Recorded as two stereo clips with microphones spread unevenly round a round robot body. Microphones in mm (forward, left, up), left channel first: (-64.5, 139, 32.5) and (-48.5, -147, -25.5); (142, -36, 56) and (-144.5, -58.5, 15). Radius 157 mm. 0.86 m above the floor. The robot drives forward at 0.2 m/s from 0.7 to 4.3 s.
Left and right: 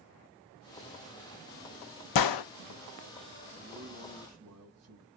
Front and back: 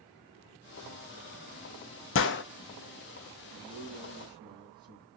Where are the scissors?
No scissors in this recording.